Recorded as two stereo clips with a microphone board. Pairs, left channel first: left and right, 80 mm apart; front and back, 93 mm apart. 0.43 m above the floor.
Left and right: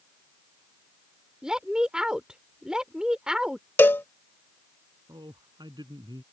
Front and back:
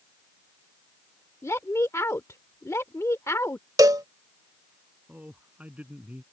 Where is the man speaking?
105° right.